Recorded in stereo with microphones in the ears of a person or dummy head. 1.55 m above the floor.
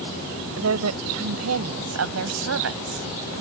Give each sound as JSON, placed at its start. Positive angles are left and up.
{"t": 0.6, "sound": "a woman speaking", "side_deg": -85}